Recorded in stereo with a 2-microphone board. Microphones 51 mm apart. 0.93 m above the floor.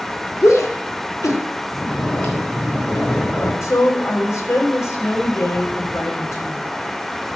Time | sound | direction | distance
0.4 | a shout | 70° left (ahead or behind) | 1.9 m
1.7 | snoring | 50° left (ahead or behind) | 3.5 m
3.6 | a woman speaking | 65° left (ahead or behind) | 3.5 m